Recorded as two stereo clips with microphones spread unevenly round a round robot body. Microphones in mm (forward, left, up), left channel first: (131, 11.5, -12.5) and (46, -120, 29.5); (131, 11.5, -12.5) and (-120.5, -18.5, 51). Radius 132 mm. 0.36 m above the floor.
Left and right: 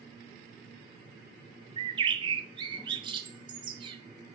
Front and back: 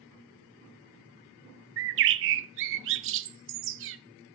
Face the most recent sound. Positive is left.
turn(degrees=170)